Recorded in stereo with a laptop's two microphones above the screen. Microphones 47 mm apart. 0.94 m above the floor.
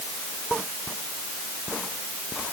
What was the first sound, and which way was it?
Only background noise.